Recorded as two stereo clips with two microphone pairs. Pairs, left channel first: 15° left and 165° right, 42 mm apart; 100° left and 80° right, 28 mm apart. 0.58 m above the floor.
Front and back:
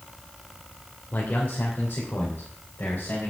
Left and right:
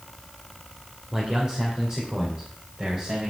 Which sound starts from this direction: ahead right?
A man speaking, at 1.1 s.